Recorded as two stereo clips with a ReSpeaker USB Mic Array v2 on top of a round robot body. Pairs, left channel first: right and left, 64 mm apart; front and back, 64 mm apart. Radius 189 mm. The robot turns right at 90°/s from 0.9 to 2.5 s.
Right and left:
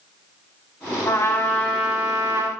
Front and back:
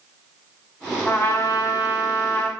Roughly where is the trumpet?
Right.